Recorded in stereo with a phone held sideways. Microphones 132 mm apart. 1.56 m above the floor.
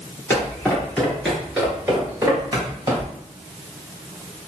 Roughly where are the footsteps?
Centre.